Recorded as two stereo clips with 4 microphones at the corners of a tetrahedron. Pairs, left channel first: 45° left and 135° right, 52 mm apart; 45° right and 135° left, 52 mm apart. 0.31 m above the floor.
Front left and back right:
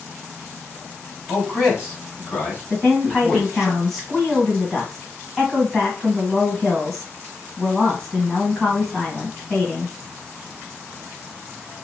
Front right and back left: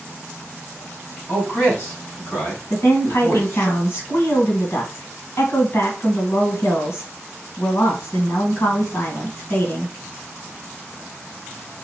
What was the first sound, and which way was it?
A man speaking, 5° right.